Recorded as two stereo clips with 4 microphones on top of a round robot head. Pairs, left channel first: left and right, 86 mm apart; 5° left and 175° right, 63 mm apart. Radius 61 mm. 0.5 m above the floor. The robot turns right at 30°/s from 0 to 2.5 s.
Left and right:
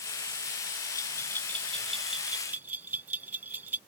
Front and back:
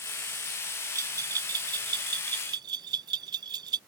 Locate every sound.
0.9 s a bell: 150° left; by 3.8 s 165° right